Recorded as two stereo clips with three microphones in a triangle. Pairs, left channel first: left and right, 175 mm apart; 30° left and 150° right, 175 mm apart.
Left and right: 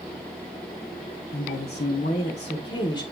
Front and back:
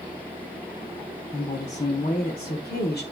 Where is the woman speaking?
85° left, 1.5 m; by 3.0 s 25° left, 1.4 m.